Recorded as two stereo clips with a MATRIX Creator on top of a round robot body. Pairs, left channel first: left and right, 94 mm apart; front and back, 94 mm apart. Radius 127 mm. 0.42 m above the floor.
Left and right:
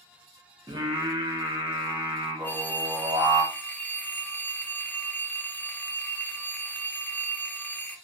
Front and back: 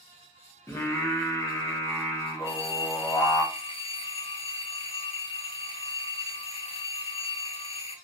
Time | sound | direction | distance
0.7 | singing | 55° right | 0.8 m
2.4 | a phone ringing | 15° left | 0.6 m